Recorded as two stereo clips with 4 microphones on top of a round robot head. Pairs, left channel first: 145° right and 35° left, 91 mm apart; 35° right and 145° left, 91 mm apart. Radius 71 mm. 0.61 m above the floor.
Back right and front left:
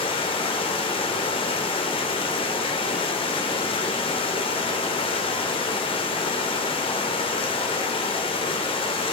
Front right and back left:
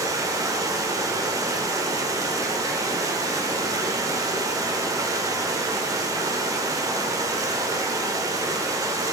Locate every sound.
0.0 s running water: 165° right, 1.3 m